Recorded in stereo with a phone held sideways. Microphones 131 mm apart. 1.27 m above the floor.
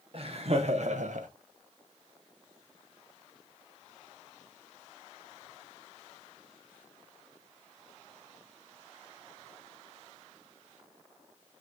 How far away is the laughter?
About 1.0 m.